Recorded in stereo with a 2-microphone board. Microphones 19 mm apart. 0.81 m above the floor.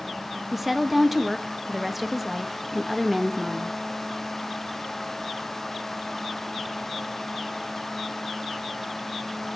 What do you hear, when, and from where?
0.5 s a woman speaking: 5° right (ahead or behind), 0.7 m